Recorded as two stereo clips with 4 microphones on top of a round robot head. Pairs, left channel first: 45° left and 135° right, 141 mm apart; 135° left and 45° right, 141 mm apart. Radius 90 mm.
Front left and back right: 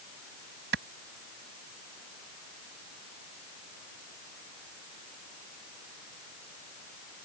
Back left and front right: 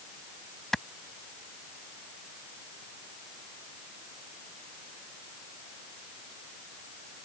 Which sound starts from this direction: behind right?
A clap, at 0.7 s.